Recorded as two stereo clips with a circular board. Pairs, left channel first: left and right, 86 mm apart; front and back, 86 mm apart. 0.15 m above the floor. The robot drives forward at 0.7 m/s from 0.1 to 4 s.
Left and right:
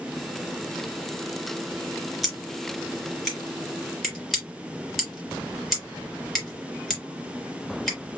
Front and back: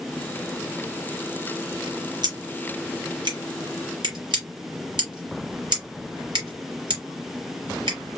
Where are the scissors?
Straight behind, 3 m.